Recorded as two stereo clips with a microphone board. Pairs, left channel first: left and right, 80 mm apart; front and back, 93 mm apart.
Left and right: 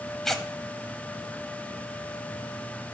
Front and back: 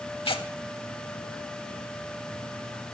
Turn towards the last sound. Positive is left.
turn(degrees=5)